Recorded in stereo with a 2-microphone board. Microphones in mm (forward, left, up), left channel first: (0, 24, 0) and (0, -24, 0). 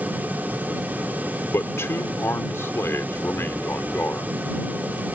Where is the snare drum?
I don't hear a snare drum.